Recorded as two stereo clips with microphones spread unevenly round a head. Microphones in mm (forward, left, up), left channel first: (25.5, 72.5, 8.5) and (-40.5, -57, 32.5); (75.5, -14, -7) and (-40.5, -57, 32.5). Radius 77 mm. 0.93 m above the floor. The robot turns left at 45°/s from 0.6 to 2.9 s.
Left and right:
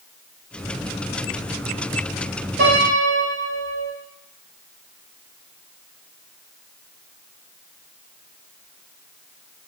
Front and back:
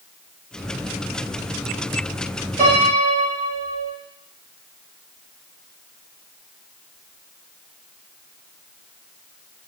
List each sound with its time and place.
2.6 s a piano: 120° right, 1.7 m; by 3.9 s 135° right, 1.7 m